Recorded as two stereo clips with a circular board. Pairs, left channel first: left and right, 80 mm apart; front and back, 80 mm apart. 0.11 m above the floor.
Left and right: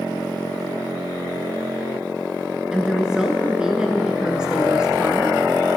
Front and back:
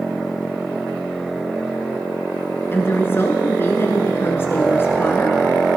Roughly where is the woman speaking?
Ahead.